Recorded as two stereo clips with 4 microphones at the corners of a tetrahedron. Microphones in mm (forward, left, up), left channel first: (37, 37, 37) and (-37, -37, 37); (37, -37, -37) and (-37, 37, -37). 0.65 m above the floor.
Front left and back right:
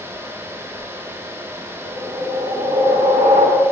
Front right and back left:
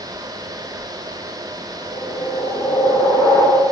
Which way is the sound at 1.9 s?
105° right.